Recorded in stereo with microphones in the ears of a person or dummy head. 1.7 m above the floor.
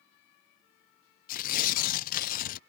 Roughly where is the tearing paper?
Left.